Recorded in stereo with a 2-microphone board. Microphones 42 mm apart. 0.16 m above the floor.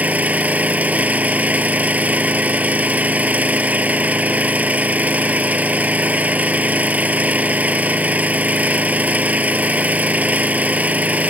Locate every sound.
0.0 s an engine running: 40° right (ahead or behind)